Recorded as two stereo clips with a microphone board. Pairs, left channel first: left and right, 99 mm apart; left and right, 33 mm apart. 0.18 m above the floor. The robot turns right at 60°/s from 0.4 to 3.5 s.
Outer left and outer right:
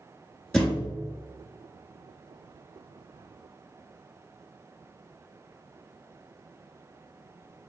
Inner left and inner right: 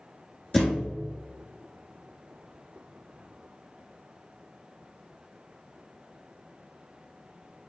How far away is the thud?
About 2 m.